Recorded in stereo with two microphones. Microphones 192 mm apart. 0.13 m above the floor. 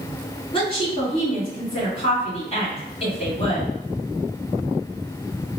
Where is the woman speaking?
30° left (ahead or behind), 1.7 m.